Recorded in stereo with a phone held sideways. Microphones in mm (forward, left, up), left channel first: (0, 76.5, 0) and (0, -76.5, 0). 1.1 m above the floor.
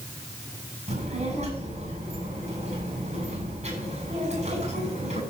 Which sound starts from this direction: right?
A child speaking, at 0.9 s.